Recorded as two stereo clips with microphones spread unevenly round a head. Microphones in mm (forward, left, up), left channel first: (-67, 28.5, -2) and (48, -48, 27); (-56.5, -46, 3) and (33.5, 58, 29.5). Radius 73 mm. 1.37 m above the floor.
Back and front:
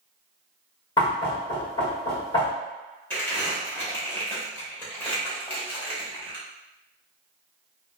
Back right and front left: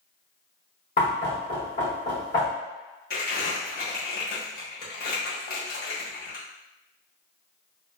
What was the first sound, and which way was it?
Knocking, 155° right.